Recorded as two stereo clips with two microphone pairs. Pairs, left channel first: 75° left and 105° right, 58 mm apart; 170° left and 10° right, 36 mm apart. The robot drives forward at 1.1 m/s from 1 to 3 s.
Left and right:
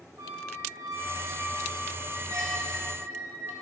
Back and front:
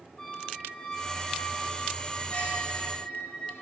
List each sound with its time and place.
0.2 s a squeak: 115° right, 3 m; by 3.5 s 145° right, 4 m